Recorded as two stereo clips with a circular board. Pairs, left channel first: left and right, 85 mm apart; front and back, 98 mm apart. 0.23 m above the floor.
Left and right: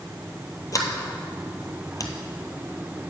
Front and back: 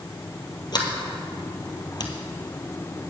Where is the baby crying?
No baby crying in this recording.